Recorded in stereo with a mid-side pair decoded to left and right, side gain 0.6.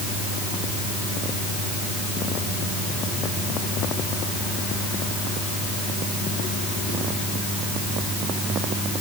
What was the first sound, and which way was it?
Only background noise.